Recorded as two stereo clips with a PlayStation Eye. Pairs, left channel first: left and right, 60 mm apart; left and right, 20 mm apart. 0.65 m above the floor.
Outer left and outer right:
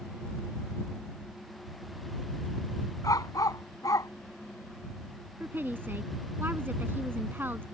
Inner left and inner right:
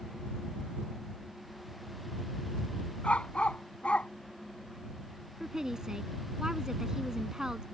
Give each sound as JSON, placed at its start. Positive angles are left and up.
{"t": 3.0, "sound": "a dog barking", "side_deg": 85}
{"t": 5.4, "sound": "a woman speaking", "side_deg": -35}